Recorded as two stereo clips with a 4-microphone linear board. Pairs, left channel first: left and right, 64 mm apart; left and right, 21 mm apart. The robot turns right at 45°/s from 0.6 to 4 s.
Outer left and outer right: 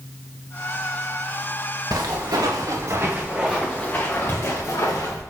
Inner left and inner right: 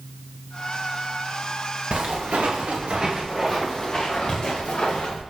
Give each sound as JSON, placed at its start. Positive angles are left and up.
{"t": 1.9, "sound": "footsteps", "side_deg": -75, "distance_m": 2.0}